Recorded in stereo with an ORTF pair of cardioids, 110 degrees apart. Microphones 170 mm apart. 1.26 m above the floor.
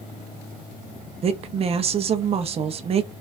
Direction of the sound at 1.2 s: 35° right.